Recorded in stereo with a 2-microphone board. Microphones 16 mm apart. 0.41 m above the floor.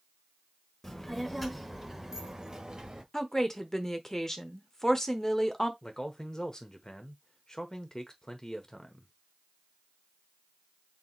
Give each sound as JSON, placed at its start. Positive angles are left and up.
{"t": 0.8, "sound": "a child speaking", "side_deg": 10, "distance_m": 1.2}
{"t": 3.1, "sound": "a woman speaking", "side_deg": 25, "distance_m": 0.9}
{"t": 5.8, "sound": "a man speaking", "side_deg": 40, "distance_m": 0.9}